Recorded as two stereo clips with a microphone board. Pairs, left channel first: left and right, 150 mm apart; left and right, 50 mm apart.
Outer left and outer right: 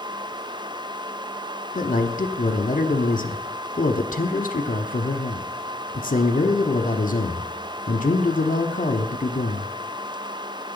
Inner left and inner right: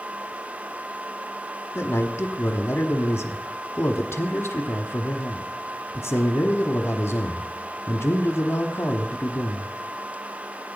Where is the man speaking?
50° left (ahead or behind), 1.1 m.